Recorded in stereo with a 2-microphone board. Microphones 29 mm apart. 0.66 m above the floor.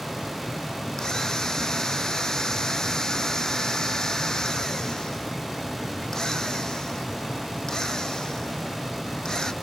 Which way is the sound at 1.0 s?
25° left (ahead or behind).